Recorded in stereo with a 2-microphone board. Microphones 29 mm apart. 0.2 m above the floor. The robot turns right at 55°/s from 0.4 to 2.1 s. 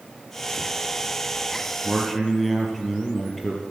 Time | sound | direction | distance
1.8 | a man speaking | 20° left (ahead or behind) | 4.5 m